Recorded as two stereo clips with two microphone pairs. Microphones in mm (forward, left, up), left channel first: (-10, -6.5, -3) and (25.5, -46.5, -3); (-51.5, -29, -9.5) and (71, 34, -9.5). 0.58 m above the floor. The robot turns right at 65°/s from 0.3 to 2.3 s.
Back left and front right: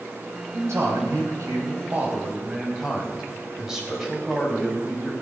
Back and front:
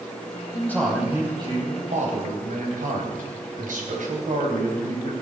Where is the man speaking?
85° right, 4 m; by 5.1 s 30° left, 4 m.